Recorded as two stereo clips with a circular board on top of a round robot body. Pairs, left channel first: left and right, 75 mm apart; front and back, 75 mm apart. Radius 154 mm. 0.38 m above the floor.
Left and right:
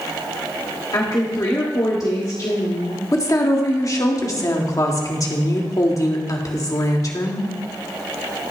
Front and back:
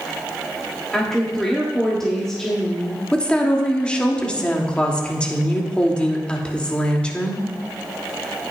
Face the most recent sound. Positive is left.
turn(degrees=75)